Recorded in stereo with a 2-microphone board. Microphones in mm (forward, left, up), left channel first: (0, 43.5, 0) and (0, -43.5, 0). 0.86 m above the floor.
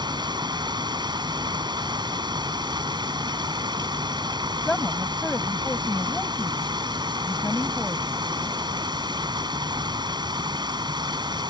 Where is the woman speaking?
10° left (ahead or behind).